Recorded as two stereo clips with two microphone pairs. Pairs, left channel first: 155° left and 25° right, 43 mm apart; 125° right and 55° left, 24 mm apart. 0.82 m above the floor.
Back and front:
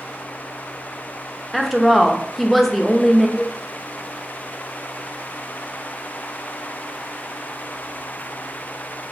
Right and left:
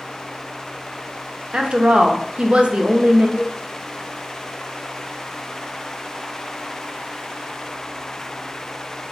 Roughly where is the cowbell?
Behind right.